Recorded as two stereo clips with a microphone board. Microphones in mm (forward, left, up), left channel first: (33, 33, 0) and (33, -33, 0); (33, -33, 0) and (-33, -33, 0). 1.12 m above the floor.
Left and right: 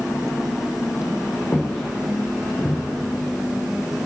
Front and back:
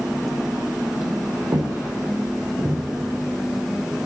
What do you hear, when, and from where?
1.5 s footsteps: 165° left, 3.5 m; by 2.8 s 160° left, 4 m